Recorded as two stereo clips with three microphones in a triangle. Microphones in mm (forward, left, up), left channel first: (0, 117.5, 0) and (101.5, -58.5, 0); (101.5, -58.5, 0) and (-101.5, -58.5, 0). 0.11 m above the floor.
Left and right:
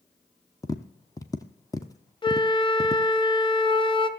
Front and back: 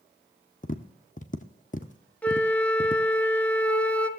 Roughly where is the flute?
Left.